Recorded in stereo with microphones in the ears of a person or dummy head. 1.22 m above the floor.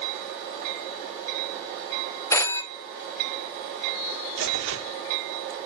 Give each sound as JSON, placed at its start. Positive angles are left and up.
{"t": 2.3, "sound": "a phone ringing", "side_deg": 20, "distance_m": 1.1}
{"t": 4.4, "sound": "tearing paper", "side_deg": -75, "distance_m": 1.5}